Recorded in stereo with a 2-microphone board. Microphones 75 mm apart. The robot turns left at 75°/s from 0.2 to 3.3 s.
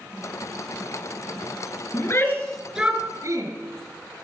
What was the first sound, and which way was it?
A shout, 55° left (ahead or behind).